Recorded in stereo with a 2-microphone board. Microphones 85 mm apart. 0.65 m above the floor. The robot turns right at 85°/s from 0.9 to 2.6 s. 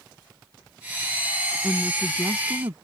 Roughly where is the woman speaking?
Behind left.